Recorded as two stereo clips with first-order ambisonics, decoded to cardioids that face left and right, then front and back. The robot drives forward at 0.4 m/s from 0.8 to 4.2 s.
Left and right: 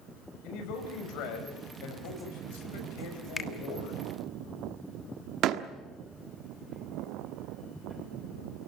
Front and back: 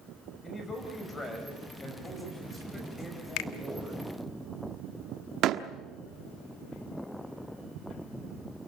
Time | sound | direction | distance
0.4 | a man speaking | 70° left | 6 m
3.4 | a finger snap | 15° left | 1.4 m
5.4 | a door slam | 135° right | 1.1 m